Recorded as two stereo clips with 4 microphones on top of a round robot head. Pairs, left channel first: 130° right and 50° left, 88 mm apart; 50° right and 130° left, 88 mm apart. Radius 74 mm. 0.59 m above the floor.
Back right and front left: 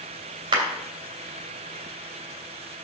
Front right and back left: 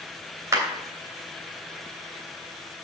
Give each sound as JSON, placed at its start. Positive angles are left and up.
{"t": 0.5, "sound": "a clap", "azimuth_deg": 80, "distance_m": 3.0}